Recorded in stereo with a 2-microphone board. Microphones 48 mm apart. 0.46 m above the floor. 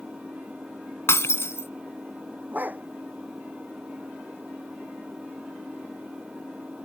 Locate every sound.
0.0 s an engine running: 25° right (ahead or behind)
1.1 s breaking glass: 65° left (ahead or behind)
2.5 s a dog barking: 40° right (ahead or behind)